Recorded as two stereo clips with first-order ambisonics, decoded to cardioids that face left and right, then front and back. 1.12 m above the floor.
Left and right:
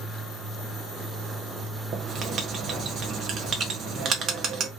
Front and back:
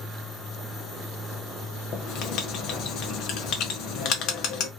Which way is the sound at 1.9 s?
35° right.